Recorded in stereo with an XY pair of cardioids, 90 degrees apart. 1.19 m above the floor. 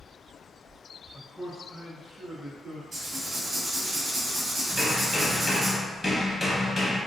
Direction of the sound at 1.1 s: 20° left.